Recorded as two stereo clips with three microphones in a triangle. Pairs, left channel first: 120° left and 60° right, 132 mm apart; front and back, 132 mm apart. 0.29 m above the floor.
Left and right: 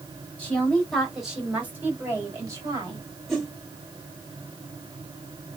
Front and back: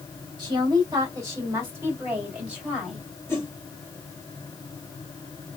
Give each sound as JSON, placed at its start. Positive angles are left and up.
{"t": 0.4, "sound": "a woman speaking", "azimuth_deg": -175, "distance_m": 1.7}
{"t": 3.3, "sound": "a whoosh", "azimuth_deg": 25, "distance_m": 1.4}